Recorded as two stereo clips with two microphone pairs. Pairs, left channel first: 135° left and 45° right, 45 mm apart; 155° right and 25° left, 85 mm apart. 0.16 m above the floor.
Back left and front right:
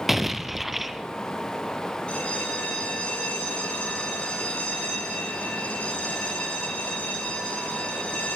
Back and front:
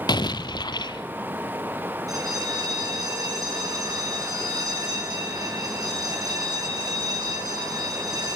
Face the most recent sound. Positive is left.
turn(degrees=70)